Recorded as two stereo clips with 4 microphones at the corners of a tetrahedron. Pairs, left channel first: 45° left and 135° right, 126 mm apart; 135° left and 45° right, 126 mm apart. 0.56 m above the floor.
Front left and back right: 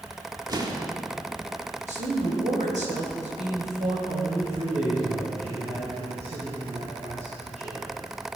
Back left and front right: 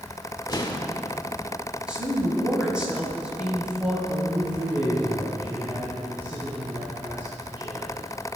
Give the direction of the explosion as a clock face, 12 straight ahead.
6 o'clock.